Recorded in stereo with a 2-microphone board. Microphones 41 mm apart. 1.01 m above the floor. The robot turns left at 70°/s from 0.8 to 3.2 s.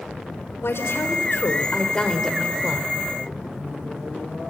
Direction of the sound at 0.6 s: 105° left.